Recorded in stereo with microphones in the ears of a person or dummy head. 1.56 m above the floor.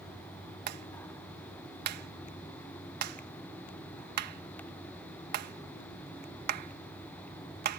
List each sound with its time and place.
0.7 s a clap: 50° right (ahead or behind)